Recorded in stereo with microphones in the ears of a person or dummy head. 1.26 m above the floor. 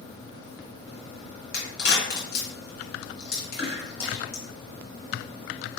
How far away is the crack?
About 1.6 m.